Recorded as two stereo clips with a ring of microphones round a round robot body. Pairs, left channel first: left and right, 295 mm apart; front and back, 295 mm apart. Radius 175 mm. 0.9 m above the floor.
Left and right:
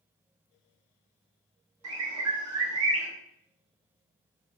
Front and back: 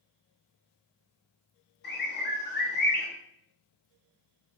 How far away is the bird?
About 1.0 m.